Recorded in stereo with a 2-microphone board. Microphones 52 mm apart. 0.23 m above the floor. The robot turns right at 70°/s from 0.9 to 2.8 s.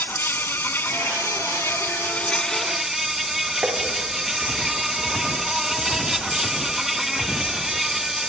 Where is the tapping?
20° right (ahead or behind), 8.5 m.